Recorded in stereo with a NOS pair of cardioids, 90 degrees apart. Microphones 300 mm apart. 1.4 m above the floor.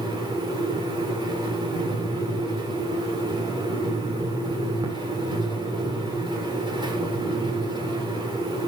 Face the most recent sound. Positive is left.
turn(degrees=-15)